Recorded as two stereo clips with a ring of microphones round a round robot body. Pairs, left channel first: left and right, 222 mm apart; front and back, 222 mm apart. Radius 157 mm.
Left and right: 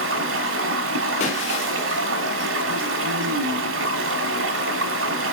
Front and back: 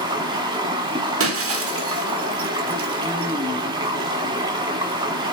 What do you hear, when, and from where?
0.0 s running water: 110° right, 1.0 m
1.2 s breaking glass: 160° left, 1.6 m